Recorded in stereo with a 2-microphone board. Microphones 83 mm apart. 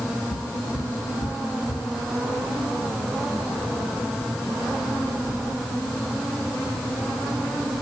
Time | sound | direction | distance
0.3 | footsteps | 75° left (ahead or behind) | 7 m